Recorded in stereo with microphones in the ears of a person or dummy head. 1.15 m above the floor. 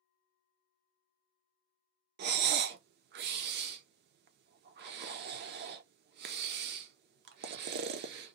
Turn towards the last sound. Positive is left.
turn(degrees=-50)  # may be behind; listen again after turning